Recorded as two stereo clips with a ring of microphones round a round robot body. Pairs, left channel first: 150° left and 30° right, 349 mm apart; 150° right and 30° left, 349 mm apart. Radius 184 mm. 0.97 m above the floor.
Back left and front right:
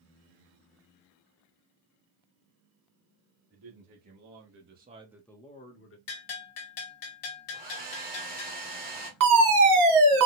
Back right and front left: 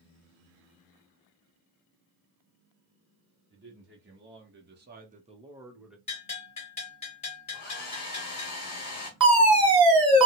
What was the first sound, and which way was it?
A man speaking, 25° right.